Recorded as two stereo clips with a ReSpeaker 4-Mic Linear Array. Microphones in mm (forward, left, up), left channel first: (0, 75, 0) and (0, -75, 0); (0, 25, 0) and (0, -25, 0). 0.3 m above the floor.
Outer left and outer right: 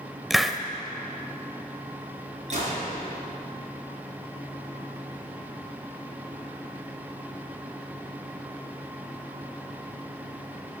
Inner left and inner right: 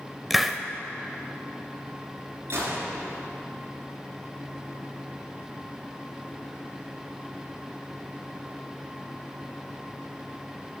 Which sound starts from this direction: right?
A gunshot, at 2.5 s.